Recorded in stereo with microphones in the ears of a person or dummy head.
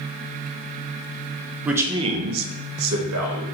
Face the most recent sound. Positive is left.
turn(degrees=-85)